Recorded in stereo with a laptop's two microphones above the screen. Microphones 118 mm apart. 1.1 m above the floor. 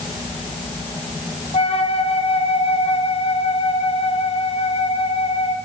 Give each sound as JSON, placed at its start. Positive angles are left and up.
{"t": 1.5, "sound": "a flute", "side_deg": 55, "distance_m": 0.6}